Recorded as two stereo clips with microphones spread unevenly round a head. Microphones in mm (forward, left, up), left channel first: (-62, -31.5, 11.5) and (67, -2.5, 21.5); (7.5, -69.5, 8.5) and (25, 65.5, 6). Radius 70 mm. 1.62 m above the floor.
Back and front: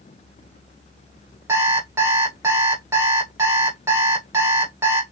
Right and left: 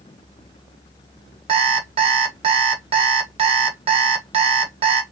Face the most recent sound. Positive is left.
turn(degrees=70)